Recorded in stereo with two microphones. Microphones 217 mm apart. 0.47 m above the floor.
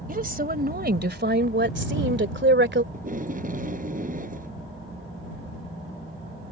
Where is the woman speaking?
40° right (ahead or behind); by 2.8 s 55° right (ahead or behind).